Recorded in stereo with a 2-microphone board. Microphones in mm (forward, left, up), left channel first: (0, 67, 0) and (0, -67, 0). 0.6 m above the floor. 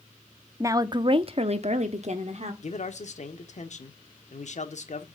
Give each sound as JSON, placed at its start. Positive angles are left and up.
{"t": 0.6, "sound": "a woman speaking", "side_deg": -20, "distance_m": 0.7}
{"t": 2.6, "sound": "a man speaking", "side_deg": 55, "distance_m": 1.3}